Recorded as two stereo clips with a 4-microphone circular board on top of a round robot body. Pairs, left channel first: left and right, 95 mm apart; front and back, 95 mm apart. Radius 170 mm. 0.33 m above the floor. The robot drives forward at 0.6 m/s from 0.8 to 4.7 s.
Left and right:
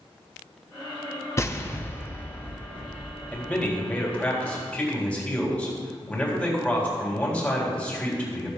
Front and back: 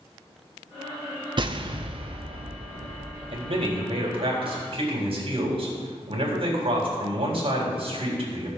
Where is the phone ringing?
No phone ringing in this recording.